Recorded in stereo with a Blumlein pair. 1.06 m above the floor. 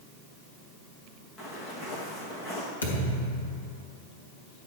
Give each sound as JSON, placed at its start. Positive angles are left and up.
{"t": 1.4, "sound": "footsteps", "azimuth_deg": 15, "distance_m": 3.5}
{"t": 2.8, "sound": "a thud", "azimuth_deg": 70, "distance_m": 3.0}